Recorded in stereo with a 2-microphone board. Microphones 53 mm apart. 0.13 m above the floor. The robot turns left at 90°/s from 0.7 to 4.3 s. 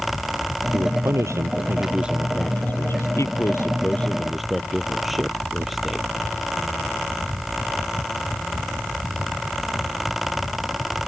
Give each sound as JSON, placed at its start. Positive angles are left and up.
{"t": 0.7, "sound": "a man speaking", "azimuth_deg": -40}